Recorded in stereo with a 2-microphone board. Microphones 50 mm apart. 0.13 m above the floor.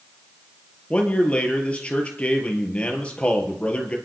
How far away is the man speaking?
About 3.5 m.